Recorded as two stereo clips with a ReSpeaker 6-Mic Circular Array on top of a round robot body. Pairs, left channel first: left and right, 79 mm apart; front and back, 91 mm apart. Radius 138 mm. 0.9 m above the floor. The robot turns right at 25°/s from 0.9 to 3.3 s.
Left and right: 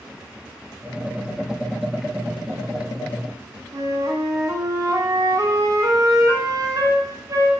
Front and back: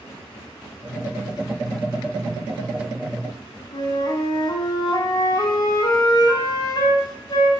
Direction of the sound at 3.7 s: 45° right.